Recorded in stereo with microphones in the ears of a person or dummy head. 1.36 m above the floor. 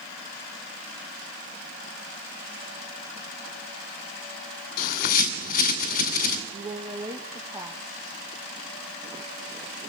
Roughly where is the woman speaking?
Right.